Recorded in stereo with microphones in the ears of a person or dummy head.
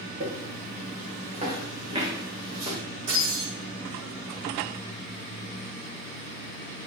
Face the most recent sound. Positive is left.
turn(degrees=-30)  # may be behind; listen again after turning